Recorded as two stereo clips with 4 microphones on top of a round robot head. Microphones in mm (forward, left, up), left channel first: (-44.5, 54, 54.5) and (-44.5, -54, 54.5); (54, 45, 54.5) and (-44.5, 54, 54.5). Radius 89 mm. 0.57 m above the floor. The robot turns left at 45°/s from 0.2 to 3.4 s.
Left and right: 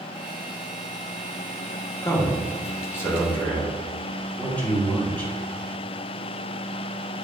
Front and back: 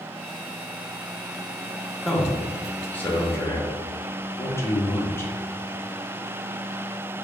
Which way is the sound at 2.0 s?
90° left.